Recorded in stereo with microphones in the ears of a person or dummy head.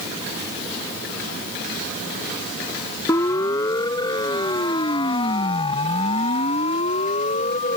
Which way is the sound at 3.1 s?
20° left (ahead or behind).